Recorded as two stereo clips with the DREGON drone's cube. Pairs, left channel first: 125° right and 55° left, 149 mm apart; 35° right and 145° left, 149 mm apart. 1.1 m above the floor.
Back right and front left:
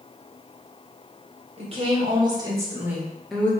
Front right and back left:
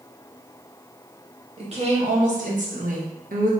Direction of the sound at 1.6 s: 100° left.